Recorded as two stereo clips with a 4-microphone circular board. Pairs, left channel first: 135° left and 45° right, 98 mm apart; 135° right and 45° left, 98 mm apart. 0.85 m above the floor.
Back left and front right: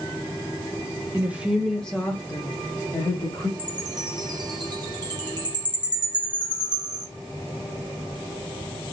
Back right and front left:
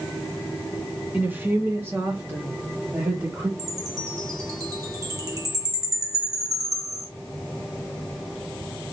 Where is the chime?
5° right, 1.2 m.